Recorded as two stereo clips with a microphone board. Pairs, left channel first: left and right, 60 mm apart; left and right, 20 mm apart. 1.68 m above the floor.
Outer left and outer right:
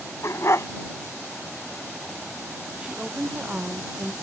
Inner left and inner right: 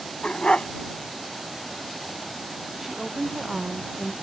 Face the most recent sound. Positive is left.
turn(degrees=-15)  # may be behind; listen again after turning